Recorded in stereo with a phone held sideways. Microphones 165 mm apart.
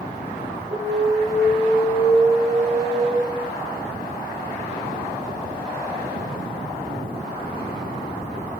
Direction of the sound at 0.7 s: 35° right (ahead or behind).